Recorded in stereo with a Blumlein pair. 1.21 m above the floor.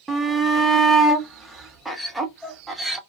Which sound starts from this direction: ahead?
A shout, at 0.1 s.